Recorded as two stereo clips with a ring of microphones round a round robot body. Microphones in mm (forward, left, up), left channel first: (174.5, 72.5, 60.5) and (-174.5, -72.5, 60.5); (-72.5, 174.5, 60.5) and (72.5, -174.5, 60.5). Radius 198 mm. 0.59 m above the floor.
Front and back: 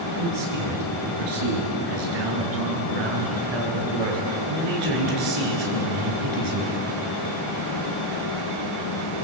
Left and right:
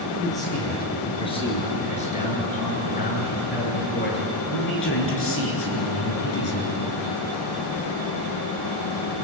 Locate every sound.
0.2 s a man speaking: 165° right, 9 m; by 6.8 s 165° left, 8 m